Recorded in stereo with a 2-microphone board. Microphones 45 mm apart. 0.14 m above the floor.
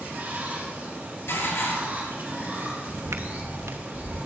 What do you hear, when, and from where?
0.0 s running water: 40° right (ahead or behind), 3.5 m
1.3 s dishes clattering: 65° left (ahead or behind), 2 m
2.9 s footsteps: 75° right (ahead or behind), 0.7 m; by 4.2 s 85° right, 2.5 m